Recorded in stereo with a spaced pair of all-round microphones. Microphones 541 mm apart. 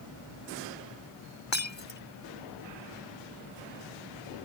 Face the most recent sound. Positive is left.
turn(degrees=55)  # may be behind; listen again after turning